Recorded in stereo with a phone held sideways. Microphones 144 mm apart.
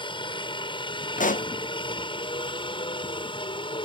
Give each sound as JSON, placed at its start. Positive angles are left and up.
{"t": 0.0, "sound": "a helicopter", "side_deg": 35}
{"t": 1.2, "sound": "a pop", "side_deg": 70}